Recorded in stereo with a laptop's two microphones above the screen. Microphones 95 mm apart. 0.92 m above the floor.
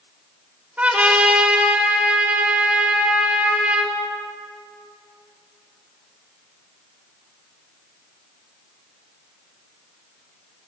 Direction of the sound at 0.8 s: 15° right (ahead or behind).